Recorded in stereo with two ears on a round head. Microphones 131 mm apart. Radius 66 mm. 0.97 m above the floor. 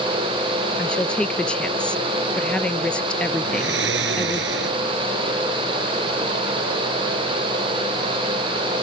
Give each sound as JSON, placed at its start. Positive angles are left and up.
{"t": 0.8, "sound": "a woman speaking", "side_deg": 5}
{"t": 3.4, "sound": "snoring", "side_deg": -85}